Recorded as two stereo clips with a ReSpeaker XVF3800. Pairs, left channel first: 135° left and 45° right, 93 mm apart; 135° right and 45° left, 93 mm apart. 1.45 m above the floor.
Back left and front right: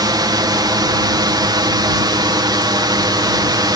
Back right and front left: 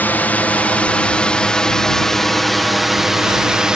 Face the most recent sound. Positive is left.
turn(degrees=-35)